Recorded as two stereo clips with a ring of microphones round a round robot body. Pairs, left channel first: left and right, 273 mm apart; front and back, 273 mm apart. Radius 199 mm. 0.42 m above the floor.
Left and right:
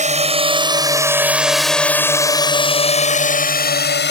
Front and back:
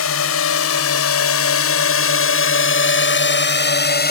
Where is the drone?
30° right; by 4.1 s 50° left.